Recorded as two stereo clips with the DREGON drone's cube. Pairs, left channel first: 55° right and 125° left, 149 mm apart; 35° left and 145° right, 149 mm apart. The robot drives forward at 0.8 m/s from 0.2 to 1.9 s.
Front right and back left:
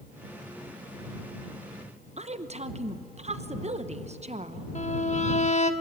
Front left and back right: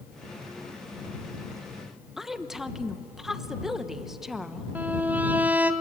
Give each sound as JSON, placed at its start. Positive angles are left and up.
{"t": 2.2, "sound": "a woman speaking", "azimuth_deg": 130, "distance_m": 1.1}
{"t": 4.8, "sound": "a violin", "azimuth_deg": -70, "distance_m": 1.0}